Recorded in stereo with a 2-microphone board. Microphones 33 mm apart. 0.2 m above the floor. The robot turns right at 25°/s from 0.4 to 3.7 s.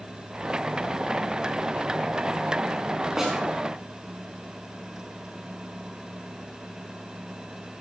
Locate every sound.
3.2 s a snare drum: 10° right (ahead or behind), 6.5 m; by 3.4 s 5° right (ahead or behind), 6.5 m